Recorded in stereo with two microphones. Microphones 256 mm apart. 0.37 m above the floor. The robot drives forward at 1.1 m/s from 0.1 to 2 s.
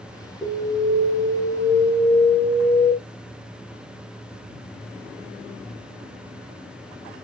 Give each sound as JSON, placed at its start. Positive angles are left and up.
{"t": 0.4, "sound": "an alarm", "side_deg": -5, "distance_m": 4.0}